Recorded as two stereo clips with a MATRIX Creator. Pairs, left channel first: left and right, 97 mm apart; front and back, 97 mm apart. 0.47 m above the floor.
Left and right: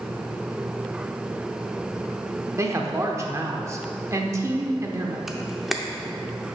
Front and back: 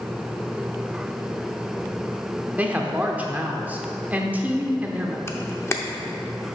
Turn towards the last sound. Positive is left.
turn(degrees=-5)